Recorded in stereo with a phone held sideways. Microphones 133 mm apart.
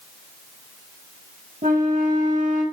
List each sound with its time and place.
1.6 s a flute: 75° right (ahead or behind), 2 m